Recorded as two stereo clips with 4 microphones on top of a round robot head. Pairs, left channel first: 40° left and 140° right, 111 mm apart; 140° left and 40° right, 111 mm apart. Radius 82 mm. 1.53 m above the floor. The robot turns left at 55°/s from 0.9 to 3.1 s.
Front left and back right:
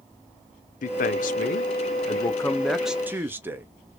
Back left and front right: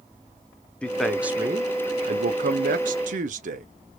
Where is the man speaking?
55° left, 0.6 m; by 3.7 s 65° right, 0.6 m.